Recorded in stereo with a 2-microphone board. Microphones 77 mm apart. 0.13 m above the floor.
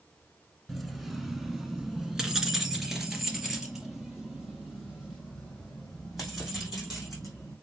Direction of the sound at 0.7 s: Centre (ahead or behind).